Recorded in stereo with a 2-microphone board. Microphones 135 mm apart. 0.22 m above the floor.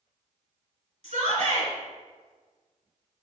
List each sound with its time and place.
1.0 s a shout: 60° right (ahead or behind), 2.5 m